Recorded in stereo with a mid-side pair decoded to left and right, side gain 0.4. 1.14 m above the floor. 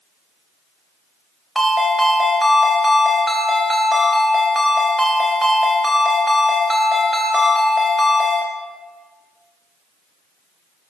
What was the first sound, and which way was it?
A ringtone, 20° right.